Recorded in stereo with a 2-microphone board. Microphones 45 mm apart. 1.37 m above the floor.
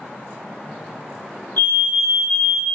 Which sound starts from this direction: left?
A fire alarm, at 1.6 s.